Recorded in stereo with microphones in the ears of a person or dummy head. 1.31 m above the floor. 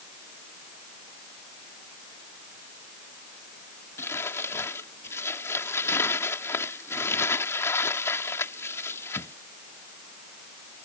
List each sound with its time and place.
4.0 s crumpling: 15° left (ahead or behind)